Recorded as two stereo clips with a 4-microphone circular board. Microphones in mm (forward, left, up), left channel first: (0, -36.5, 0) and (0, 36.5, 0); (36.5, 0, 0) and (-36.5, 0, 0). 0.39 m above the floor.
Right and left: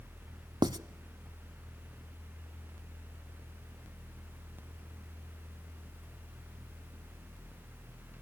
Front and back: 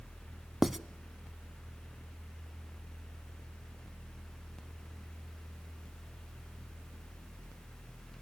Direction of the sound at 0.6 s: 90° left.